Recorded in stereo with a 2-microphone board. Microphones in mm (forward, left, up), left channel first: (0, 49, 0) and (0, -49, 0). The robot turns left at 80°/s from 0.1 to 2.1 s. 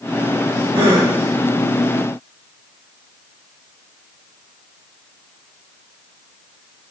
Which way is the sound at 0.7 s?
65° right.